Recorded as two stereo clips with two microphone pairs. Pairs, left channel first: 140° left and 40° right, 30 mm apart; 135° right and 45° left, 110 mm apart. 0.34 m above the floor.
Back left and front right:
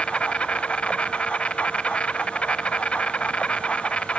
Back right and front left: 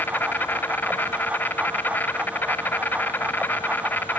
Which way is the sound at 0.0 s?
160° left.